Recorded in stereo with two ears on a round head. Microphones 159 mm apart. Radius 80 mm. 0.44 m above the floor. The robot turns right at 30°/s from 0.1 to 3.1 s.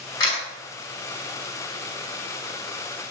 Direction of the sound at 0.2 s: 20° left (ahead or behind).